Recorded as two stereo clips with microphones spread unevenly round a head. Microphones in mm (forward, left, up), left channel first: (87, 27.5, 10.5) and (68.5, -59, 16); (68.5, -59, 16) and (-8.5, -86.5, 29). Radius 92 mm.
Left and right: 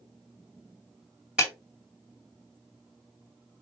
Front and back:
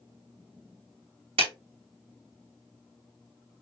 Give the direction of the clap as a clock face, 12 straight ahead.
6 o'clock.